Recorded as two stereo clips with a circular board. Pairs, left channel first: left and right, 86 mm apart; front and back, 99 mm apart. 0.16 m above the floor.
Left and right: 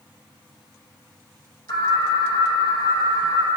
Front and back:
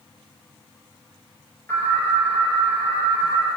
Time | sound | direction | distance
1.7 | an alarm | 65° left | 4.5 m